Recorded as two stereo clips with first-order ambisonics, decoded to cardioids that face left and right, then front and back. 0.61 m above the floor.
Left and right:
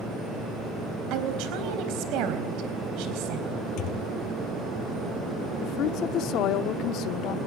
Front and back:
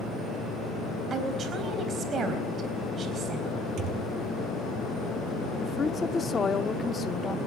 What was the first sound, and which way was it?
A woman speaking, 115° right.